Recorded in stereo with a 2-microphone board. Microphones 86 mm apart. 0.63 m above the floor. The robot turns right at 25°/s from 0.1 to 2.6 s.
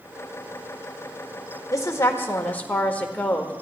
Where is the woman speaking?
40° left (ahead or behind), 1.7 m; by 3.5 s 20° left (ahead or behind), 1.7 m.